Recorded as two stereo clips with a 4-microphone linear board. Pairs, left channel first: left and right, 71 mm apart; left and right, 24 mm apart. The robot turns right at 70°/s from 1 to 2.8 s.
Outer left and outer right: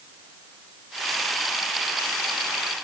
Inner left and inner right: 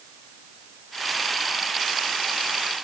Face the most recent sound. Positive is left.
No sound to turn to.